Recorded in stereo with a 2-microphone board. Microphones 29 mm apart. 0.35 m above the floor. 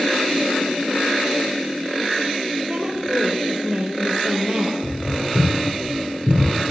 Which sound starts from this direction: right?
A woman speaking, at 2.7 s.